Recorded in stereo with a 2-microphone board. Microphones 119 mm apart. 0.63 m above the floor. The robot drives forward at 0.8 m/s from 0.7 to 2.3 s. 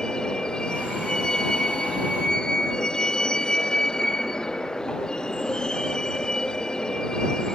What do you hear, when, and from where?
0.0 s a vehicle: 5° left (ahead or behind)